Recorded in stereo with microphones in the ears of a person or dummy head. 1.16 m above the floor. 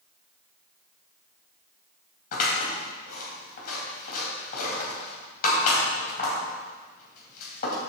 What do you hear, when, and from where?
2.3 s scissors: 50° left (ahead or behind), 3 m